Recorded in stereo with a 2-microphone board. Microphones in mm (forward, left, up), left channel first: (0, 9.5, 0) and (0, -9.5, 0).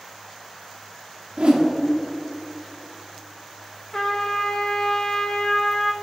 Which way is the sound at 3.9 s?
30° left (ahead or behind).